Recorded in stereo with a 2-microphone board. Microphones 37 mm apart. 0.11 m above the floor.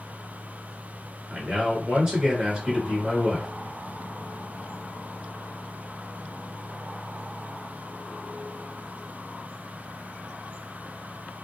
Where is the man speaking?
20° right (ahead or behind), 1.5 m.